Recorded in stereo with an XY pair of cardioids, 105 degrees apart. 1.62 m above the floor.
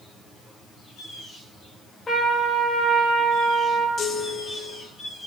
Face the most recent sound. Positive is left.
turn(degrees=50)